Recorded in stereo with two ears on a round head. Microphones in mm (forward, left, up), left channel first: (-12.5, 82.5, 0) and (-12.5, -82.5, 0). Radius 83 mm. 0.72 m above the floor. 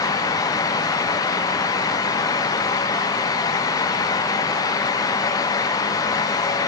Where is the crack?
I don't hear a crack.